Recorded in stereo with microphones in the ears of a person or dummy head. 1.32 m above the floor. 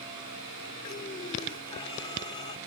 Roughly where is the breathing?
Left.